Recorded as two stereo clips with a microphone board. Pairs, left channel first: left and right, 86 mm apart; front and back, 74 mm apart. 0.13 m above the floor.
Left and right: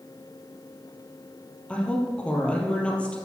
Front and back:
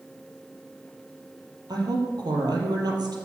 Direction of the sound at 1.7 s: 165° left.